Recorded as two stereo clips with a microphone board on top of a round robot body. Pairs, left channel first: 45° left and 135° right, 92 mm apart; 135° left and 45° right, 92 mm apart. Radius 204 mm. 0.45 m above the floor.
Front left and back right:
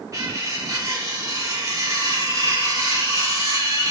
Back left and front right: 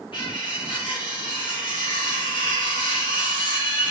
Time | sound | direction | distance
0.1 | cutlery clinking | 170° left | 3.5 m